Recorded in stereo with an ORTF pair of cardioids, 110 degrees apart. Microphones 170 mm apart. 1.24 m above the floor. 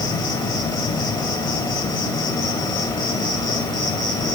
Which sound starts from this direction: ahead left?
An insect, at 0.0 s.